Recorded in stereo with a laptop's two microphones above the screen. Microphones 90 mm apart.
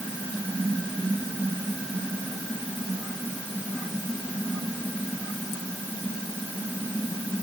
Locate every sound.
Only background noise.